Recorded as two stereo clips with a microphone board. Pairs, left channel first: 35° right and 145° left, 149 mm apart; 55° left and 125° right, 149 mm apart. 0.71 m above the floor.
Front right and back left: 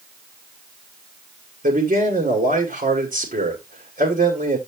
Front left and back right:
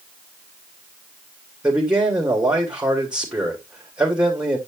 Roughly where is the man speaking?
Behind left.